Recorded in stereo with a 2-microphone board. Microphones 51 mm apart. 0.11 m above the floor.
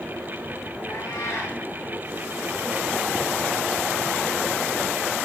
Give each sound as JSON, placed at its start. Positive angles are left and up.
{"t": 0.9, "sound": "a cat meowing", "side_deg": 80, "distance_m": 6.5}